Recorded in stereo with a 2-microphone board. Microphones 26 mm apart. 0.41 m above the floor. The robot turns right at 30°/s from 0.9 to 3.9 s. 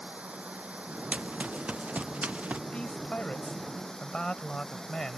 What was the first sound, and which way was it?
Running water, 65° right.